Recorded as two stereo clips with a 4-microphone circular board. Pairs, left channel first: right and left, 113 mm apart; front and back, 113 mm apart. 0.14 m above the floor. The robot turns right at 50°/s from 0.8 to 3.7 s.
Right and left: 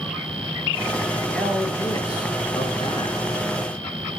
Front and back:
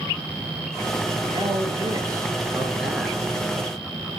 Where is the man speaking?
170° right, 2.5 m; by 3.2 s 75° right, 2.5 m.